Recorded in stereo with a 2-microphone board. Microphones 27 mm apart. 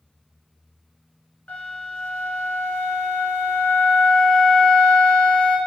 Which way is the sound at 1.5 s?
55° left (ahead or behind).